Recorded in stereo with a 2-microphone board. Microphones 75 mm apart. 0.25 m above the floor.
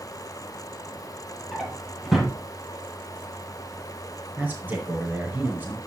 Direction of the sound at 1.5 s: Centre (ahead or behind).